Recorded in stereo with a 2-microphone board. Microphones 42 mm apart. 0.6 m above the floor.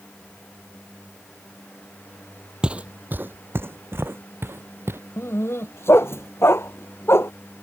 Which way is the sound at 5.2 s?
75° left (ahead or behind).